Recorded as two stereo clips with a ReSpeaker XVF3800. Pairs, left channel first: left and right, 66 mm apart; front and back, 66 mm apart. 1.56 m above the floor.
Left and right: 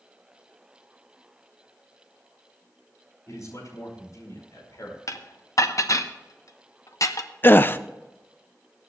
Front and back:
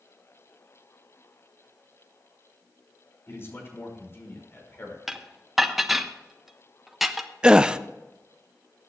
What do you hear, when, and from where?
3.3 s a man speaking: 55° left, 5.5 m
5.1 s dishes clattering: 95° left, 0.9 m
7.4 s a gasp: 115° left, 0.5 m